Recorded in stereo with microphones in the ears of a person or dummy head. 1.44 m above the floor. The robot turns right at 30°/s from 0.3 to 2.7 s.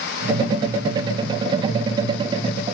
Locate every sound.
Only background noise.